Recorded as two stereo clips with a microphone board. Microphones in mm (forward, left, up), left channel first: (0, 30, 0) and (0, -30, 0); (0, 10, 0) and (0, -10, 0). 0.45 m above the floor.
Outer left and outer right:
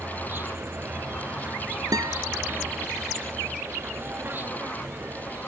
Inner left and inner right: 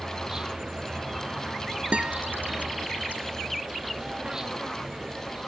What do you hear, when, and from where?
0.0 s an insect: 30° right (ahead or behind)
1.9 s a guitar: 85° right